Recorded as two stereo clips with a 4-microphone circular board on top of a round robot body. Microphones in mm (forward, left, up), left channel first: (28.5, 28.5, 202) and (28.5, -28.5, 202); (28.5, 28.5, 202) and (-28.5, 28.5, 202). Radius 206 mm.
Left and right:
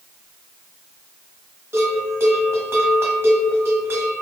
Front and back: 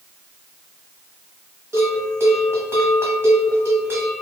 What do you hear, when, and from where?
1.7 s a bell: 135° right, 1.2 m